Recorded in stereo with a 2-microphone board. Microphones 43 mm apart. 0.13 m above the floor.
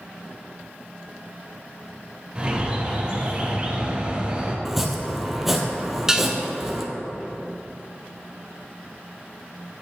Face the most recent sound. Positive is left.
turn(degrees=-15)  # may be behind; listen again after turning